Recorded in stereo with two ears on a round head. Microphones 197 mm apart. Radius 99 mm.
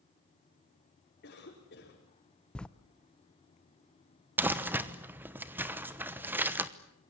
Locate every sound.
1.2 s a cough: 45° left (ahead or behind), 5 m
2.5 s writing: 5° left (ahead or behind), 0.7 m
4.4 s crumpling: 10° right (ahead or behind), 1.0 m